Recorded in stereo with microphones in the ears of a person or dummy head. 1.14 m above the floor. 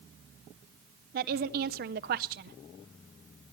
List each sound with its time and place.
1.1 s a woman speaking: 45° right (ahead or behind), 0.5 m